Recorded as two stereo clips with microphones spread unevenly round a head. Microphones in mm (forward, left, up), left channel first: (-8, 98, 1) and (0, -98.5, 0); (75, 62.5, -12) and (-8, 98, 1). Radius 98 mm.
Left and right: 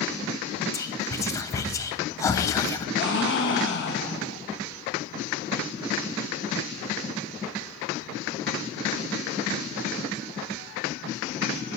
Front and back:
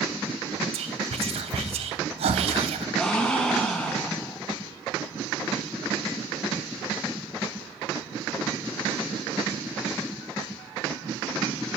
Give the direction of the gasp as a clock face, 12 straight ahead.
10 o'clock.